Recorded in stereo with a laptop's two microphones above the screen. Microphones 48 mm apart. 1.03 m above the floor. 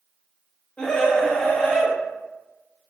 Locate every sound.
0.8 s a scream: 25° left (ahead or behind), 1.1 m